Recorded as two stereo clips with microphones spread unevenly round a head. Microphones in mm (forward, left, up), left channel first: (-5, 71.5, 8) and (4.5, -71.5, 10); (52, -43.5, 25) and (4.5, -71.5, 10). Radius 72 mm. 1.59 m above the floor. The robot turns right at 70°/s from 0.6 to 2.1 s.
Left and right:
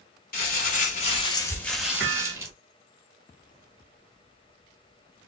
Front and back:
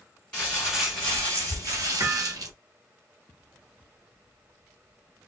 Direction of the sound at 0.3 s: 100° left.